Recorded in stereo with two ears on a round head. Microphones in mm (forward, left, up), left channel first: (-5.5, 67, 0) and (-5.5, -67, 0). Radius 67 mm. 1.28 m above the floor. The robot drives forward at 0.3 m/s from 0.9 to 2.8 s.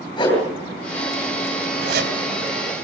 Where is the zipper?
65° right (ahead or behind), 3.5 m.